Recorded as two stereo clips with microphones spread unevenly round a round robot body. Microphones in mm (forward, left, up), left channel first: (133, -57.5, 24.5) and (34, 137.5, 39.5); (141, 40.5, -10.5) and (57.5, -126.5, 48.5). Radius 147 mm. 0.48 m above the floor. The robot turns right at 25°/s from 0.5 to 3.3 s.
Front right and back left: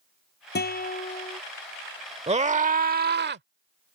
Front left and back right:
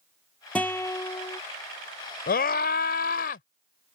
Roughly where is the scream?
Ahead left.